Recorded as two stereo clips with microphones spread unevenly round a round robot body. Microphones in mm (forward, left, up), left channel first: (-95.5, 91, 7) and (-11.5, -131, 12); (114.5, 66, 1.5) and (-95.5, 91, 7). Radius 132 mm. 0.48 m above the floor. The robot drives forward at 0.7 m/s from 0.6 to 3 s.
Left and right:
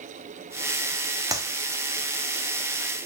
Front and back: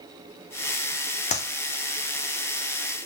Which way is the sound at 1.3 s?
5° right.